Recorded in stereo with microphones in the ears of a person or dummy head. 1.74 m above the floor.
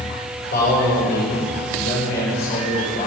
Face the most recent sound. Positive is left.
turn(degrees=55)  # may be behind; listen again after turning